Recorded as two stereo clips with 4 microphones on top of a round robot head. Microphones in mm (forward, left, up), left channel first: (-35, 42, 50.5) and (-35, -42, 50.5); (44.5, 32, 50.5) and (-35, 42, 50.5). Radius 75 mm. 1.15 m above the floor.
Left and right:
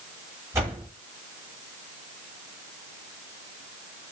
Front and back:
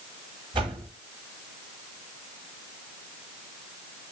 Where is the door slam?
145° right, 5.5 m.